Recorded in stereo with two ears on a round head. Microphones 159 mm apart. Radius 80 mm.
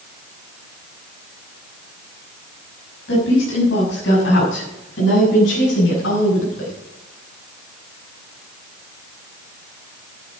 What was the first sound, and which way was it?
A woman speaking, 80° left.